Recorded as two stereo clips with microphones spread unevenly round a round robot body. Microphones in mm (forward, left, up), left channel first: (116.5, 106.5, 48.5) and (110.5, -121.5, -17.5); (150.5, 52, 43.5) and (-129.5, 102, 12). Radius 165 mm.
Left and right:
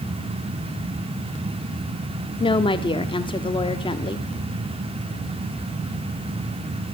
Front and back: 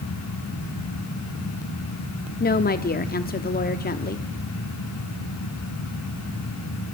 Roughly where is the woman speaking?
Ahead.